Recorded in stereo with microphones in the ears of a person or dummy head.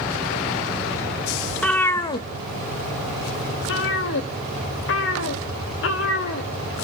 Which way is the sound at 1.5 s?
Centre (ahead or behind).